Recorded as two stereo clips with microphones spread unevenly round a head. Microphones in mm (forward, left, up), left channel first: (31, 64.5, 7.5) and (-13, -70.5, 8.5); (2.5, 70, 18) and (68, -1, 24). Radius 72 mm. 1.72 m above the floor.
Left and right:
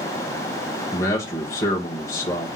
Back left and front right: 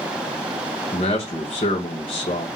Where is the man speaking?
140° left, 0.8 m.